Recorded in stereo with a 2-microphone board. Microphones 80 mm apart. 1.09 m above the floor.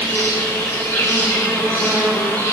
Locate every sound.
0.0 s an insect: 20° left (ahead or behind), 1.3 m